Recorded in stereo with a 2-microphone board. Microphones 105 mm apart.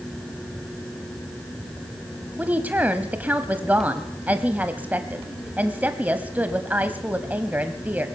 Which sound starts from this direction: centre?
A woman speaking, at 2.4 s.